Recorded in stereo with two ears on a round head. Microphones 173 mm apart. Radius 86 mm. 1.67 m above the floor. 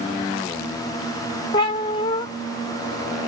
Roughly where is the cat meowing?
Left.